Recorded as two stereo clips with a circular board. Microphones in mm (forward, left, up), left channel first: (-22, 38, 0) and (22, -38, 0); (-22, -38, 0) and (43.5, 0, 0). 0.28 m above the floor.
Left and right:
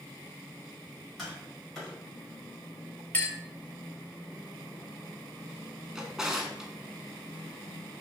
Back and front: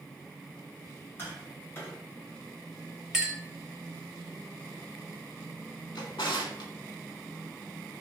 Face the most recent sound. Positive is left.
turn(degrees=-145)